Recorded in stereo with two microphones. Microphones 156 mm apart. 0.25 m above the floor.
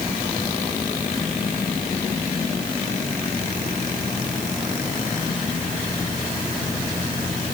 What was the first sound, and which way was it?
Only background noise.